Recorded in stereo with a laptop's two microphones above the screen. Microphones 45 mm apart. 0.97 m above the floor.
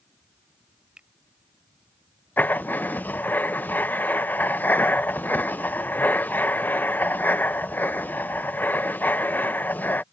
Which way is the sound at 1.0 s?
20° right (ahead or behind).